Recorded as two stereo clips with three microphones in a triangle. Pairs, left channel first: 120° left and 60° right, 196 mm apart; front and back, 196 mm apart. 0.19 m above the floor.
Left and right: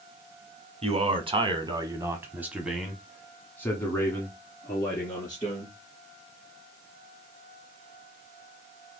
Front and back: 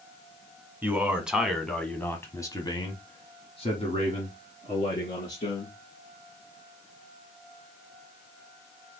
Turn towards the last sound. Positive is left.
turn(degrees=55)